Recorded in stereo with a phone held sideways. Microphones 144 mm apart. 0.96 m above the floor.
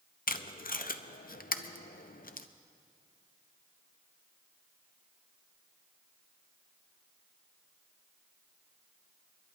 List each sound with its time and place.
0.3 s tape being pulled: 80° left, 0.5 m